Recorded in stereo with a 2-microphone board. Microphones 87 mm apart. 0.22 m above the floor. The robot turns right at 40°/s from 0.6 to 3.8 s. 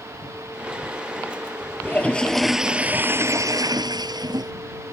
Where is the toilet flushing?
155° left; by 4.5 s 125° right.